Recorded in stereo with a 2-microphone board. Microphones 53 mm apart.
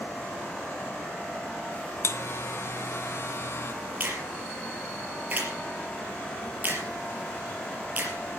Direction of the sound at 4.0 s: 35° right (ahead or behind).